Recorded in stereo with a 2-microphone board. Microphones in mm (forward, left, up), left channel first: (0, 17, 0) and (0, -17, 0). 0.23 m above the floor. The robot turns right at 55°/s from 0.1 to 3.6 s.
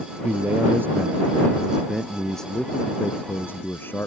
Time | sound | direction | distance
0.2 | a man speaking | 105° right | ?